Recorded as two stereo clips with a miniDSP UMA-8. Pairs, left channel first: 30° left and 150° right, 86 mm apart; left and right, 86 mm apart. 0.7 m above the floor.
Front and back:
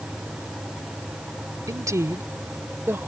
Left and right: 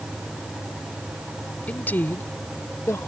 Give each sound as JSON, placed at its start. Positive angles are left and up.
{"t": 1.7, "sound": "a woman speaking", "azimuth_deg": 160}